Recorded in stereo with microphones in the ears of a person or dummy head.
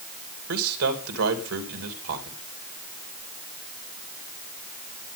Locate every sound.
0.5 s a man speaking: 75° right (ahead or behind), 2.5 m